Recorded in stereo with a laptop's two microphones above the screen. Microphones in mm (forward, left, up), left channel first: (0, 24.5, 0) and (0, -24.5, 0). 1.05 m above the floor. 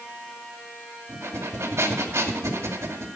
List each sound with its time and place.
1.1 s breathing: 75° right (ahead or behind), 2.5 m